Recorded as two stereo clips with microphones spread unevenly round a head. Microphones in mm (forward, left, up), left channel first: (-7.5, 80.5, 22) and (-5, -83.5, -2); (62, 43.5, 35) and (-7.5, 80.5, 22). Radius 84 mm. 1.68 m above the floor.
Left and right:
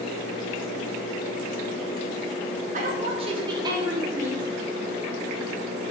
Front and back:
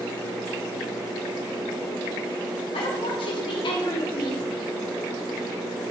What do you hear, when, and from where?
2.7 s a woman speaking: 40° right, 1.3 m; by 4.5 s 5° right, 1.8 m